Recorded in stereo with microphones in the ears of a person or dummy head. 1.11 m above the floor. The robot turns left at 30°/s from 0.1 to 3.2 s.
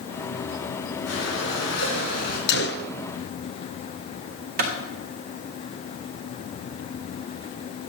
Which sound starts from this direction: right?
A clap, at 4.6 s.